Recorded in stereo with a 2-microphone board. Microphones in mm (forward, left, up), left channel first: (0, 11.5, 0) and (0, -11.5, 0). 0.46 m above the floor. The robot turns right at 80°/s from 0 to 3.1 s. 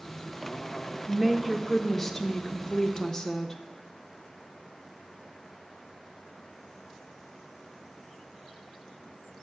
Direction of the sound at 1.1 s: 20° right (ahead or behind).